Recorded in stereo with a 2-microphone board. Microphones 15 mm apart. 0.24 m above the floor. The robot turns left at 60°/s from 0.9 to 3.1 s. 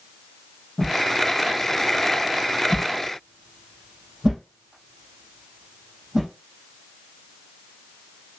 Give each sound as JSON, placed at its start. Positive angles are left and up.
{"t": 0.8, "sound": "a whoosh", "side_deg": 85, "distance_m": 5.5}